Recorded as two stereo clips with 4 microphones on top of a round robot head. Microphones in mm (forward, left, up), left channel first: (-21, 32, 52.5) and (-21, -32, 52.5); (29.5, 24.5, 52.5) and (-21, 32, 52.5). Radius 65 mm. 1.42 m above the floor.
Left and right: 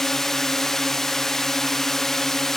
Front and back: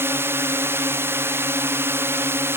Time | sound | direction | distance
0.0 | a drone | 175° left | ?